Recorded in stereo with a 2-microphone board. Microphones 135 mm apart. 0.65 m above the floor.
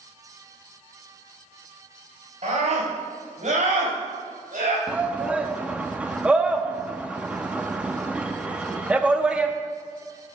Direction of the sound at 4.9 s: 10° right (ahead or behind).